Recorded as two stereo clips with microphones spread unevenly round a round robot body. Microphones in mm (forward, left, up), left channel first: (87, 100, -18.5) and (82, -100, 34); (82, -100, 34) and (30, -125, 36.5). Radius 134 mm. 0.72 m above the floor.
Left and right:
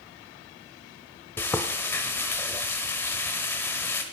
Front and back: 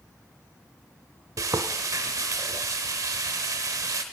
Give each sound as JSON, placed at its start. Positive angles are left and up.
{"t": 1.4, "sound": "frying", "azimuth_deg": 180, "distance_m": 0.6}